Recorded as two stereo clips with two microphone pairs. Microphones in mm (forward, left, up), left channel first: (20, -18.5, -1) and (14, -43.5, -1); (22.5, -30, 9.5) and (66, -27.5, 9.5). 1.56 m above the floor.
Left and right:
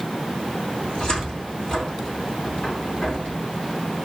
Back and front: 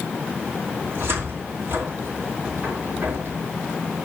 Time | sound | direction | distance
0.8 | a cupboard door | 30° left | 2.5 m